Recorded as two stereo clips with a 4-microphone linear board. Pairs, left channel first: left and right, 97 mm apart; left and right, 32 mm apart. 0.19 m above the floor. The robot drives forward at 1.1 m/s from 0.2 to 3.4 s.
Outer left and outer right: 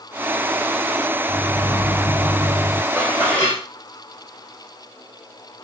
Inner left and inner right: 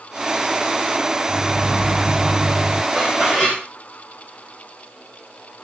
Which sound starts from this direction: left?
A microwave, at 1.3 s.